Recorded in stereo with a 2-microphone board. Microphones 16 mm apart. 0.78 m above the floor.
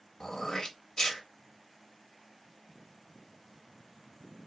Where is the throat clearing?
50° left (ahead or behind), 0.8 m.